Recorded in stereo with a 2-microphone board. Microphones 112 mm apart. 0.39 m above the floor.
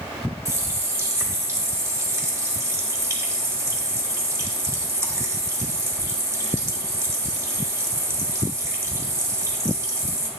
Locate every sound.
0.5 s a running tap: 25° right (ahead or behind), 1.1 m